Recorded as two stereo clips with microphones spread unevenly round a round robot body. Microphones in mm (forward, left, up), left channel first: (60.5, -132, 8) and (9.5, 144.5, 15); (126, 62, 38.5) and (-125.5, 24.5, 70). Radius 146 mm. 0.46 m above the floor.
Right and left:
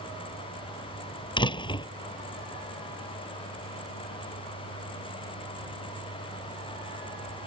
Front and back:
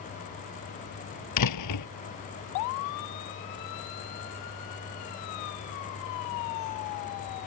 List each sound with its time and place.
1.4 s a door slam: 5° right